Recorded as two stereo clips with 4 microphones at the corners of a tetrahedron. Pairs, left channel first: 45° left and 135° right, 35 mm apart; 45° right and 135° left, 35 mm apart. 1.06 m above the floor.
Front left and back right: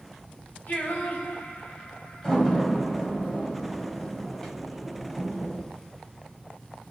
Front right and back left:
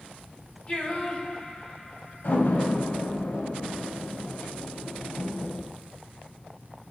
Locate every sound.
0.7 s singing: 5° left, 2.5 m
2.2 s a door slam: 30° right, 4 m